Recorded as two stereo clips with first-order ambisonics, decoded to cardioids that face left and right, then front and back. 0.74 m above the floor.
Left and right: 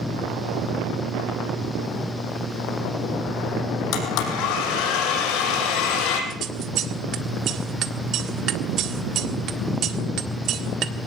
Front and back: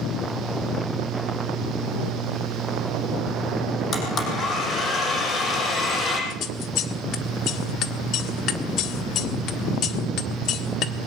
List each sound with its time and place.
3.9 s a blender: 60° left, 5.5 m
6.3 s scissors: 45° right, 1.6 m